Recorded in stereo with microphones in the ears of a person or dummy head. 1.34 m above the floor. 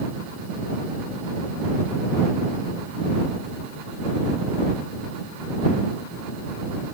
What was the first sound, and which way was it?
Only background noise.